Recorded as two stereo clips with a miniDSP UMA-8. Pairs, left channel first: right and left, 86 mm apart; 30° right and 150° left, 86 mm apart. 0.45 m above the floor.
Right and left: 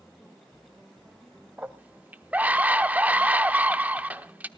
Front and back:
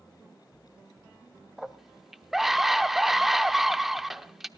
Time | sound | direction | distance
1.6 | a scream | 70° left | 0.8 m